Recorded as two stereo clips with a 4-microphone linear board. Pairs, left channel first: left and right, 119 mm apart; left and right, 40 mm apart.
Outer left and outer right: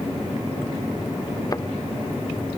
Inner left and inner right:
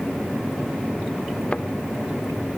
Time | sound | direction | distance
1.5 | a thud | 30° left (ahead or behind) | ?